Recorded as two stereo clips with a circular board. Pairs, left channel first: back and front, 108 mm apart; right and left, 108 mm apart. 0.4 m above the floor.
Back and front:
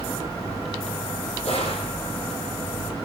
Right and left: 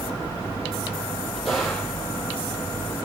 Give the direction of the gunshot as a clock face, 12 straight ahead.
6 o'clock.